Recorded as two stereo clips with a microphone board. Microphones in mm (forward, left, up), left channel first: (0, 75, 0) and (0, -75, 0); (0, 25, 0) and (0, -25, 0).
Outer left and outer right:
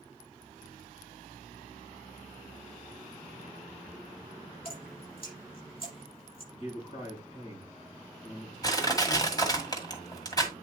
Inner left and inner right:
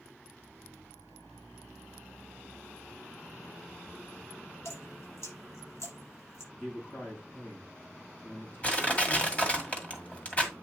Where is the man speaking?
50° left (ahead or behind), 4 m.